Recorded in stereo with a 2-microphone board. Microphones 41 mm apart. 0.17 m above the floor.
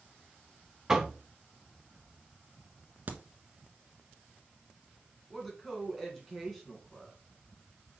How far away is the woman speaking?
About 2 m.